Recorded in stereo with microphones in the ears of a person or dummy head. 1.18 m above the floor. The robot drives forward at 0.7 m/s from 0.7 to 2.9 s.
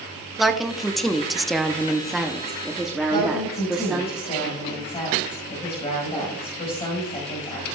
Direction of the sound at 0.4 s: Centre (ahead or behind).